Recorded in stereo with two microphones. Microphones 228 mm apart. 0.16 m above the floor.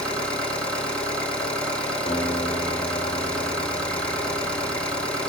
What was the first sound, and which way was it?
An engine running, 5° left (ahead or behind).